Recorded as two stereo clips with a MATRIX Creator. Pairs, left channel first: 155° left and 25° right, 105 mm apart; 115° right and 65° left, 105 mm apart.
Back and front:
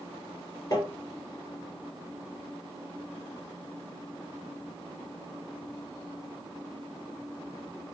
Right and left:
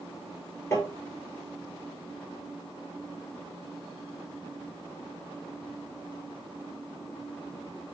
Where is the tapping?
170° right, 1.4 m.